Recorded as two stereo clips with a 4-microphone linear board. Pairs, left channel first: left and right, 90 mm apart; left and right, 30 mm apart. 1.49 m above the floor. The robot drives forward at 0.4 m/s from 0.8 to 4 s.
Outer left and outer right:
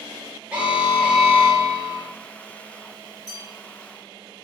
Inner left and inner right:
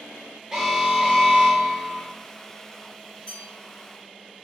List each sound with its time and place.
0.5 s an alarm: 15° right (ahead or behind), 1.1 m; by 2.1 s 20° right (ahead or behind), 0.9 m
3.3 s a bell: 30° left (ahead or behind), 1.4 m